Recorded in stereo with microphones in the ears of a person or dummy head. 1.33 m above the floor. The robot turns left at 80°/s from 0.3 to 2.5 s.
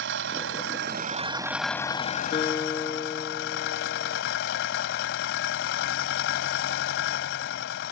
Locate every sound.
0.0 s an engine running: 80° right; by 7.9 s 105° left
2.3 s a guitar: 35° left (ahead or behind); by 4.2 s 20° left (ahead or behind)